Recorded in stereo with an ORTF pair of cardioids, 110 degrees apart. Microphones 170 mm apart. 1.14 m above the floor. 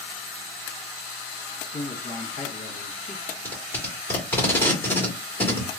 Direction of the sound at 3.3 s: 10° left.